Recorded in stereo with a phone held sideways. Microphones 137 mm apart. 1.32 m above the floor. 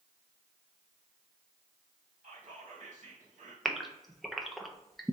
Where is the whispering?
50° right (ahead or behind), 1.4 m.